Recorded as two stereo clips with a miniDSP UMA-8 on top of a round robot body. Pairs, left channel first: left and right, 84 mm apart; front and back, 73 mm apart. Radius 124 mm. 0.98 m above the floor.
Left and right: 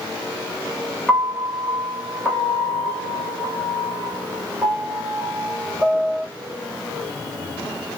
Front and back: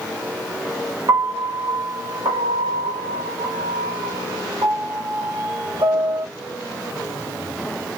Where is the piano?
175° left, 2 m.